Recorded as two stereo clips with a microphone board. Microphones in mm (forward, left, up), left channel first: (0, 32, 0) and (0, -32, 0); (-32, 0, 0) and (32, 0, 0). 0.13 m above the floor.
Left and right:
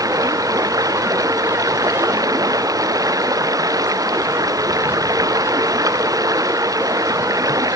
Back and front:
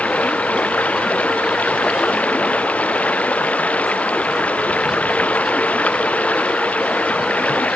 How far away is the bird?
I don't hear a bird.